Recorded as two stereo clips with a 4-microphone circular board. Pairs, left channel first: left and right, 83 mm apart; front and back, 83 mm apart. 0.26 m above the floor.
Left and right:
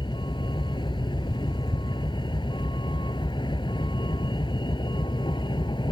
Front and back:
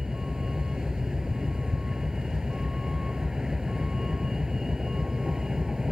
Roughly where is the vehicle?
Left.